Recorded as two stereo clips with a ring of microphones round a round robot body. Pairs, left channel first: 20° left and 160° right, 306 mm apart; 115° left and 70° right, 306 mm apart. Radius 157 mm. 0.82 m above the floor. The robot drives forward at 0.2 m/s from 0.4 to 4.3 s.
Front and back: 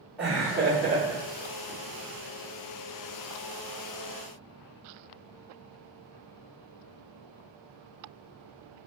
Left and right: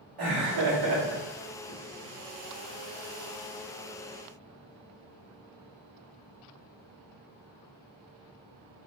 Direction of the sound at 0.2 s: 70° right.